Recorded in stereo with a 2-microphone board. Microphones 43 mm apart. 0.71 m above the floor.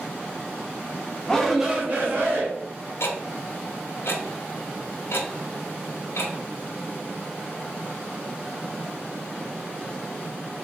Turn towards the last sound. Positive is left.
turn(degrees=70)  # may be behind; listen again after turning